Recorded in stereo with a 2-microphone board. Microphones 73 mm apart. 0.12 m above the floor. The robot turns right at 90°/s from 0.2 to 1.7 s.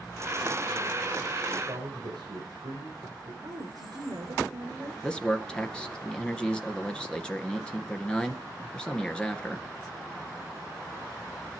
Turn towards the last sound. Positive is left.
turn(degrees=15)  # may be behind; listen again after turning